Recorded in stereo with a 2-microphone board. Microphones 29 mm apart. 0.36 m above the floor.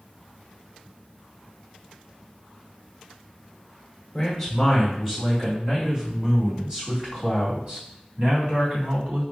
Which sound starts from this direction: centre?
A man speaking, at 4.1 s.